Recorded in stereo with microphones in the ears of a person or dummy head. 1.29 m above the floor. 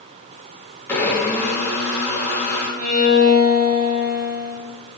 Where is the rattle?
I don't hear a rattle.